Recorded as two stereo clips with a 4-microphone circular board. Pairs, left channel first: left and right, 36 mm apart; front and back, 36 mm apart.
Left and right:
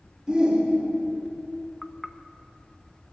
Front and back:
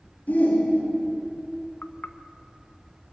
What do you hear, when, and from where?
0.3 s a shout: 25° right, 2.5 m
1.8 s knocking: 5° left, 0.8 m